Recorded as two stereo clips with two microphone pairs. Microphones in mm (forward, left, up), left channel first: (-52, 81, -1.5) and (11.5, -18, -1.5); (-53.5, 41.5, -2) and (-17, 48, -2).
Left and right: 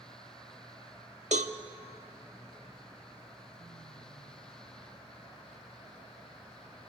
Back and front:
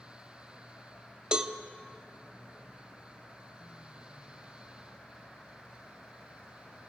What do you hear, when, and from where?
1.3 s a cowbell: 60° right, 1.0 m